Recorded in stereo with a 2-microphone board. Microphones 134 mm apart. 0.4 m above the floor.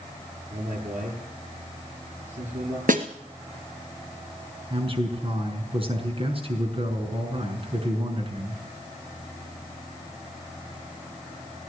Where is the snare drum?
90° right, 1.8 m.